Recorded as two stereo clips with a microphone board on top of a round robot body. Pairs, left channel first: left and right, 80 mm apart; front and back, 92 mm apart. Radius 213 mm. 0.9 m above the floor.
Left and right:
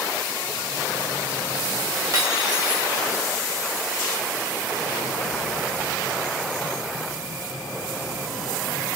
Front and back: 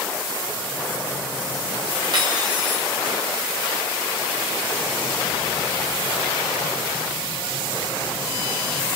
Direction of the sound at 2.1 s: 135° right.